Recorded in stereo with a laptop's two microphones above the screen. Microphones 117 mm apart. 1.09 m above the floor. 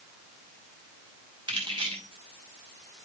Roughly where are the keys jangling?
Right.